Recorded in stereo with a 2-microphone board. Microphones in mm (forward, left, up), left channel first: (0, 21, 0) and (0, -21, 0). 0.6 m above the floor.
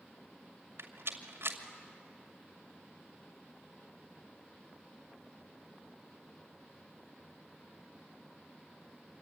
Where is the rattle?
75° right (ahead or behind), 2 m.